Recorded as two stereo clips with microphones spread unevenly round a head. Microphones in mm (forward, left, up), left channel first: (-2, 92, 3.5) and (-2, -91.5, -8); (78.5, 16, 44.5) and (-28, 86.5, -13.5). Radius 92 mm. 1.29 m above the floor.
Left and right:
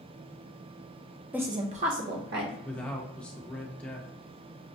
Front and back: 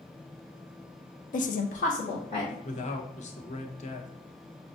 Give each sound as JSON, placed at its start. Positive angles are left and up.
{"t": 1.3, "sound": "a woman speaking", "azimuth_deg": -15, "distance_m": 0.5}
{"t": 2.6, "sound": "a man speaking", "azimuth_deg": 5, "distance_m": 0.8}